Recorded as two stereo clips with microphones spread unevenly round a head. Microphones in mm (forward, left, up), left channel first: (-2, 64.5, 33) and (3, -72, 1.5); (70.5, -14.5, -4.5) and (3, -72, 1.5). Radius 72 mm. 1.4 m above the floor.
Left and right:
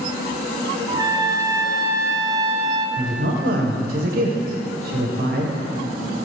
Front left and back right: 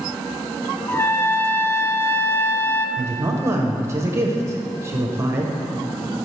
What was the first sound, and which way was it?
A trumpet, 25° right.